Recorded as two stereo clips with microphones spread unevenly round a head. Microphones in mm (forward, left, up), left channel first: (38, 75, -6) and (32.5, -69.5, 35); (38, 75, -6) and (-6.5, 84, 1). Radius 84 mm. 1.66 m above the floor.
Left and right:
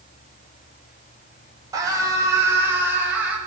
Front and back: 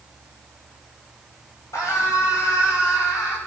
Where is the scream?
25° right, 9.5 m; by 3.4 s 10° right, 9.5 m.